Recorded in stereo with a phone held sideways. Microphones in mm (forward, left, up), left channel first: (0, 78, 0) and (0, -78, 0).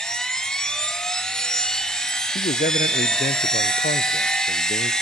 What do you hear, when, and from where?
0.0 s a machine running: 5° left (ahead or behind), 0.8 m
2.4 s a man speaking: 70° left (ahead or behind), 0.5 m